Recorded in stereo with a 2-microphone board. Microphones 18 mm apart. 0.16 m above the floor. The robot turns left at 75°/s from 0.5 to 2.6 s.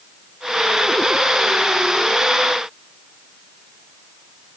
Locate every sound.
Only background noise.